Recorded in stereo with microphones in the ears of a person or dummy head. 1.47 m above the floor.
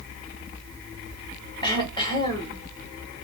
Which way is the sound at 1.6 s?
25° left (ahead or behind).